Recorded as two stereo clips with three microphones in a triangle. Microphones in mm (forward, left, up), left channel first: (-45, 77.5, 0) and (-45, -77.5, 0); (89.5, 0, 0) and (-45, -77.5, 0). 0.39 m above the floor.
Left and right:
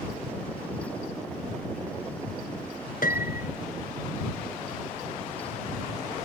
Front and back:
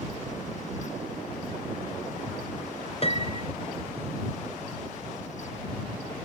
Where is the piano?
75° left.